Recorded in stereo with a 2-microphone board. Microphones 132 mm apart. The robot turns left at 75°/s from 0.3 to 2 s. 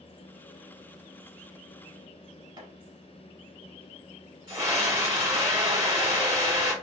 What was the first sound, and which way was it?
Chopping, 35° right (ahead or behind).